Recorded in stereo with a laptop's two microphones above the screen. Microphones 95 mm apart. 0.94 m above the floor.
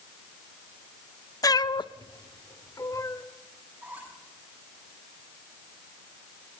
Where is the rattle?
I don't hear a rattle.